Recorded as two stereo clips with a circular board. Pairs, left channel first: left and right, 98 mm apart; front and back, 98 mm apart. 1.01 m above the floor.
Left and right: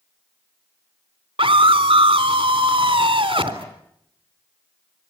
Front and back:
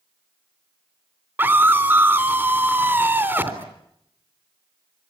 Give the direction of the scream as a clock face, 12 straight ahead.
4 o'clock.